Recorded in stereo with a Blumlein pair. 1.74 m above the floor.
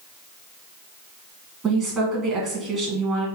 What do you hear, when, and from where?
1.6 s a woman speaking: 25° right, 2.5 m